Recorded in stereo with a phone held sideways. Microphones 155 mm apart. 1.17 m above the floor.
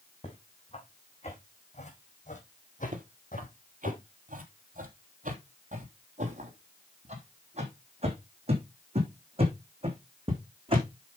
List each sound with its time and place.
0.2 s footsteps: 40° left (ahead or behind), 4.5 m; by 3.9 s 65° left (ahead or behind), 3 m
2.9 s footsteps: 55° right (ahead or behind), 2 m; by 10.8 s 35° right (ahead or behind), 5 m